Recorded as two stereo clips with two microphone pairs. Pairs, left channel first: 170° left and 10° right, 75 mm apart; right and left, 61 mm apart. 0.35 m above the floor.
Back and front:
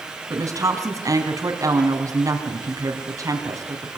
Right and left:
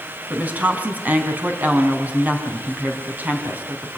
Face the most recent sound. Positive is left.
turn(degrees=30)